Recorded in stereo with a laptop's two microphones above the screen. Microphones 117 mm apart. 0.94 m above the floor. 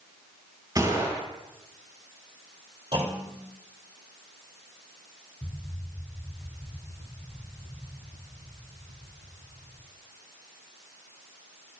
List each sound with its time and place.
0.8 s a gunshot: 30° right (ahead or behind), 6.5 m
2.9 s a clunk: 45° right (ahead or behind), 2.5 m
5.4 s an explosion: 15° left (ahead or behind), 0.7 m